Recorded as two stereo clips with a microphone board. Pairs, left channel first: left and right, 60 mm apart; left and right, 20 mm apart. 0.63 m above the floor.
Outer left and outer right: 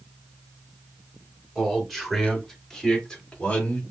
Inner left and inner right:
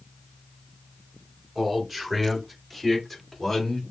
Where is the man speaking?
5° right (ahead or behind), 3.5 m; by 3.8 s 25° left (ahead or behind), 1.9 m.